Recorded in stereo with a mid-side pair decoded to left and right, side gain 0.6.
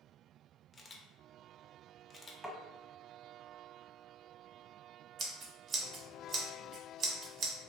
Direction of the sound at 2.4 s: 5° right.